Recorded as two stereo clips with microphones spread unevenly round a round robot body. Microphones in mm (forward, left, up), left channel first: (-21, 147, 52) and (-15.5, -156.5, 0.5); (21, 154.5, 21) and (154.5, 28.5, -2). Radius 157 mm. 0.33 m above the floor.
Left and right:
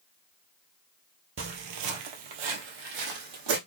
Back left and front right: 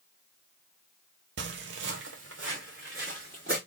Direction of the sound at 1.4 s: 35° right.